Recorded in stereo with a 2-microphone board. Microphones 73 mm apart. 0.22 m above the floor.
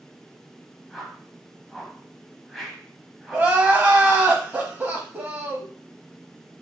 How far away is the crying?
About 0.7 m.